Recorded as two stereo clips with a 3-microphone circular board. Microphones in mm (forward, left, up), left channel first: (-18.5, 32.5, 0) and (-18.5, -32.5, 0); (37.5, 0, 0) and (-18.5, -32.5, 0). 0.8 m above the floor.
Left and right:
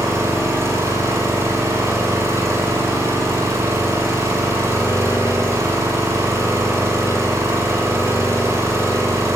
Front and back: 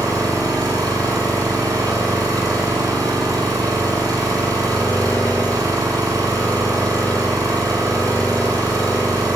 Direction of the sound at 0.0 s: 135° right.